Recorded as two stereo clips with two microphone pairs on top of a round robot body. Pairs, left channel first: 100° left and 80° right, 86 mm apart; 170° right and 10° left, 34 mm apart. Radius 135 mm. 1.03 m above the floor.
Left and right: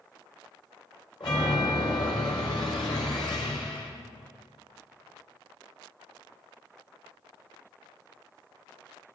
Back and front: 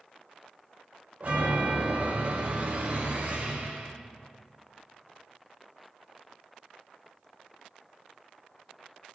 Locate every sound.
1.2 s a chime: 65° left, 4 m